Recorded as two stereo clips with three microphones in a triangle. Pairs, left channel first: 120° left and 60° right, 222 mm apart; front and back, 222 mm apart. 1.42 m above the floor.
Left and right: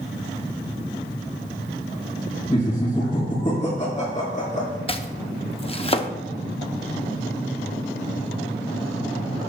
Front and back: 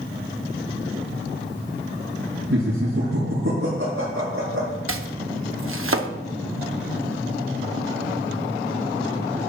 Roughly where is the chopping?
Behind.